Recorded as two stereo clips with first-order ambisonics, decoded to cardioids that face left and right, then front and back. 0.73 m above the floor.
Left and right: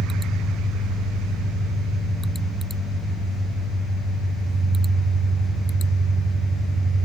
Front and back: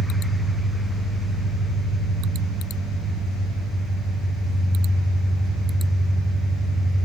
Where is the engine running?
75° left, 4.5 m.